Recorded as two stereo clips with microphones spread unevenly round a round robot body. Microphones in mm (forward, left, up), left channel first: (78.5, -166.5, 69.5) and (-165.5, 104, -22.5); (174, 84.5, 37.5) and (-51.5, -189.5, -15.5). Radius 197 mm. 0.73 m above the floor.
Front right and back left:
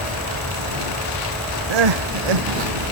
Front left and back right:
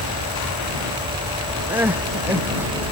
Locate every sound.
1.7 s crying: 145° left